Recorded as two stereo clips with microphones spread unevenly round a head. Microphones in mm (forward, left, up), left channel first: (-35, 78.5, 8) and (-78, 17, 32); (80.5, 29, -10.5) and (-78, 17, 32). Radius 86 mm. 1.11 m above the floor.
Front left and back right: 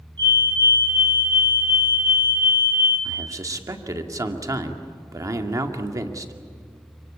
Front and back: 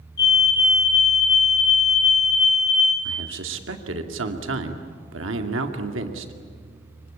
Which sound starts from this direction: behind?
A man speaking, at 3.0 s.